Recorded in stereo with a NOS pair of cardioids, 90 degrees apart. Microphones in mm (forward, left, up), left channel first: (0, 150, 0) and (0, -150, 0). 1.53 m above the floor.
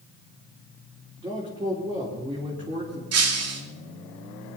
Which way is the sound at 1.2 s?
15° right.